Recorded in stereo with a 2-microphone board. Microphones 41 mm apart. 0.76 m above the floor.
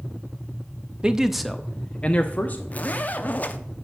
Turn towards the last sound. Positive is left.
turn(degrees=40)  # may be behind; listen again after turning